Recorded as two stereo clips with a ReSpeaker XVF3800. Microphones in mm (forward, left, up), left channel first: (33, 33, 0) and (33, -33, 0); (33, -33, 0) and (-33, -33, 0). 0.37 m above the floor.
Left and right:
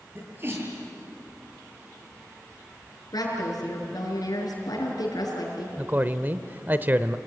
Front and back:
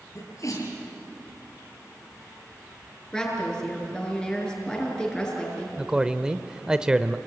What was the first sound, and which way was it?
A sneeze, 35° right.